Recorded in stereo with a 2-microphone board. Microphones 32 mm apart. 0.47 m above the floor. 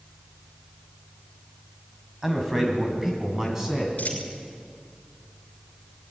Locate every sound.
2.2 s a man speaking: 10° right (ahead or behind), 3.5 m
4.0 s a dropped coin: 55° left (ahead or behind), 6.5 m